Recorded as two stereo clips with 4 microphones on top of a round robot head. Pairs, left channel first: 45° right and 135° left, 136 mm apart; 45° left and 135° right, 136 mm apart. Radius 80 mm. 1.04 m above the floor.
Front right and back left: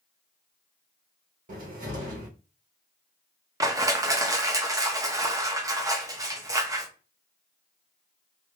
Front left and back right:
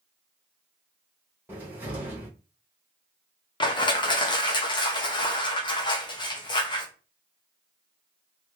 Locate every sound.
1.5 s a cupboard door: 150° left, 1.3 m
3.6 s crushing: 80° left, 0.8 m